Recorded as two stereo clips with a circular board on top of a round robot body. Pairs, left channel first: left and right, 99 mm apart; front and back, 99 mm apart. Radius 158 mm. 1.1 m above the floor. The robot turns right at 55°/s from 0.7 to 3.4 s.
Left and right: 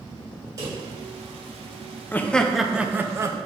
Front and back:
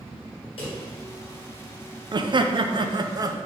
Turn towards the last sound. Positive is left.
turn(degrees=-135)